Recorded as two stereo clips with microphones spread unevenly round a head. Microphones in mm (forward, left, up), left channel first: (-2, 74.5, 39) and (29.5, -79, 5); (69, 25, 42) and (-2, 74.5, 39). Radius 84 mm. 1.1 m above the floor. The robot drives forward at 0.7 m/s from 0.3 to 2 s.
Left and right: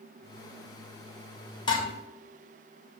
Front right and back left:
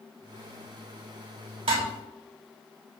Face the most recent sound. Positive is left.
turn(degrees=165)